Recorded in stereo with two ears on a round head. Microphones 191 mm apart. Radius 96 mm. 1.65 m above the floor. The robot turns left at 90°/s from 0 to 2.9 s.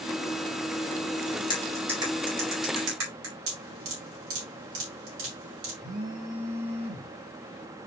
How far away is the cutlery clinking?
About 4.5 m.